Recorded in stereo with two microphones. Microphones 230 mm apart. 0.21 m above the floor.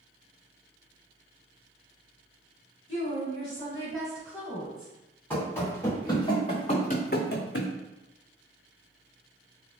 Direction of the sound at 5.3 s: 5° left (ahead or behind).